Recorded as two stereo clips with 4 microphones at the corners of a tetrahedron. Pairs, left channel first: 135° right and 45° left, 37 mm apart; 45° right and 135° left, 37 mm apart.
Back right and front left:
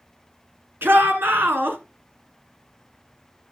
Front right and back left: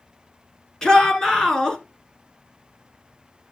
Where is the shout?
25° left, 3 m.